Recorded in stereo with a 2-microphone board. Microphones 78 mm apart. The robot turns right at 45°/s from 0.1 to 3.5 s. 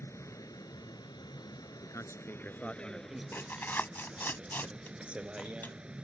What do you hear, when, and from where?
0.0 s a vehicle: 40° left; by 6.0 s 165° right
1.8 s a man speaking: 130° left; by 3.2 s 170° right
3.3 s tearing paper: 35° left (ahead or behind); by 5.8 s 30° left (ahead or behind)